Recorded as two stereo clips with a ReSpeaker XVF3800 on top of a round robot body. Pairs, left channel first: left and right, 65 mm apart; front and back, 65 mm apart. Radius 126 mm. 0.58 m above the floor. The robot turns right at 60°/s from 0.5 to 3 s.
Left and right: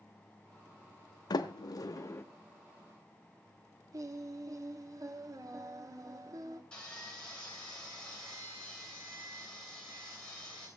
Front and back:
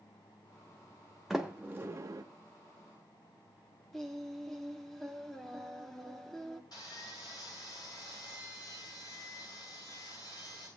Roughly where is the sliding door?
Left.